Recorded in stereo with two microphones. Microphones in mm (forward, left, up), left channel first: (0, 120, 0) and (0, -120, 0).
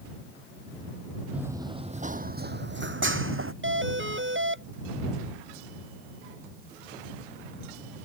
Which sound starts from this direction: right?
A doorbell, at 3.6 s.